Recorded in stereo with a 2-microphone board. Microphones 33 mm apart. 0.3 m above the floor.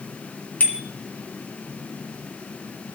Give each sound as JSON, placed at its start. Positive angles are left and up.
{"t": 0.6, "sound": "a bicycle bell", "side_deg": 50, "distance_m": 2.5}